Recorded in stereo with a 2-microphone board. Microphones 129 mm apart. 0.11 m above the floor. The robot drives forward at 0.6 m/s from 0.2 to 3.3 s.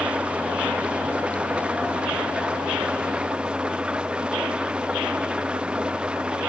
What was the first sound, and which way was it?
An engine running, 10° right (ahead or behind).